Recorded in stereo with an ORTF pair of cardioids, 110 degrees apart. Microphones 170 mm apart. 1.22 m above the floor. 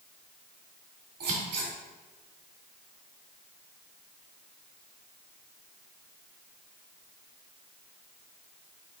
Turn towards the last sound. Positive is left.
turn(degrees=-70)